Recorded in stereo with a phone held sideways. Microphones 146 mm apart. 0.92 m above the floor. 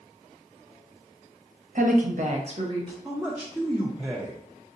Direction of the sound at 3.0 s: 5° right (ahead or behind).